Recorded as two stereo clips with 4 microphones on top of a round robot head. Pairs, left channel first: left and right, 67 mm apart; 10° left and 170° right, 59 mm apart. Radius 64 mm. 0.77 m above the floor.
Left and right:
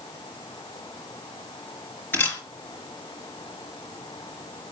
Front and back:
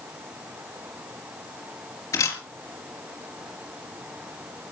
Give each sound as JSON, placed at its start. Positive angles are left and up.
{"t": 2.1, "sound": "a camera shutter", "azimuth_deg": 30, "distance_m": 4.5}